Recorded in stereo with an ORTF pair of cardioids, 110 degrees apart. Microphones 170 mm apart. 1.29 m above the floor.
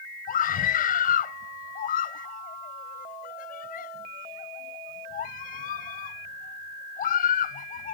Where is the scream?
55° left.